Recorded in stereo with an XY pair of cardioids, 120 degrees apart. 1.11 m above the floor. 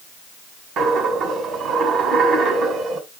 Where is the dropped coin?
65° right, 2.0 m.